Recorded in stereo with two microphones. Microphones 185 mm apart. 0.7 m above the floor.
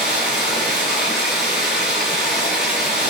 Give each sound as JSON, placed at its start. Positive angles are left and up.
{"t": 0.0, "sound": "running water", "side_deg": -5, "distance_m": 3.5}